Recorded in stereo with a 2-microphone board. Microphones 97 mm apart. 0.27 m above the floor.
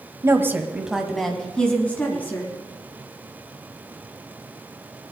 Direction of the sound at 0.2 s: 30° right (ahead or behind).